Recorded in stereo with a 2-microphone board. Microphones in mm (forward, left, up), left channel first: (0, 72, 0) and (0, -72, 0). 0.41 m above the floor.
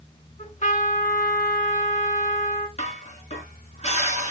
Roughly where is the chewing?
I don't hear chewing.